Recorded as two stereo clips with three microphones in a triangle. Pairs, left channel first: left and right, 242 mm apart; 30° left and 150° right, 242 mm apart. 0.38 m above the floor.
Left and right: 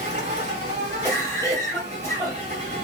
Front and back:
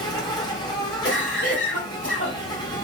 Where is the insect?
40° right, 1.8 m.